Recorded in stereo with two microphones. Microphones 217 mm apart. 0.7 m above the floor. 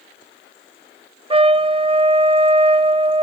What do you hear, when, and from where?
1.3 s a trumpet: 25° right (ahead or behind), 0.8 m